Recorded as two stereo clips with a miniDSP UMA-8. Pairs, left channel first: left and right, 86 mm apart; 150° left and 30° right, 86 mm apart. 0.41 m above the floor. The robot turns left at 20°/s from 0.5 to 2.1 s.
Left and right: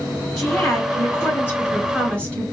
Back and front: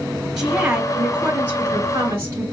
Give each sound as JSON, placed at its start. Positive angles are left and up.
{"t": 0.4, "sound": "a woman speaking", "azimuth_deg": 50, "distance_m": 1.7}